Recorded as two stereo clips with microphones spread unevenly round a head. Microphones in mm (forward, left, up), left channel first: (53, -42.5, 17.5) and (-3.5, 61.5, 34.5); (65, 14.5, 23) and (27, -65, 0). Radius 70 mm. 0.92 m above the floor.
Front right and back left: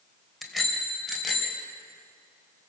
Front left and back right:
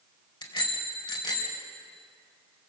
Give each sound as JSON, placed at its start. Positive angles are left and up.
{"t": 0.4, "sound": "a bicycle bell", "azimuth_deg": 30, "distance_m": 3.0}